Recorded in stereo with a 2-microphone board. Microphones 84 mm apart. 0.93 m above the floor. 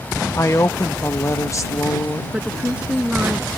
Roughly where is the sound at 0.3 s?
Left.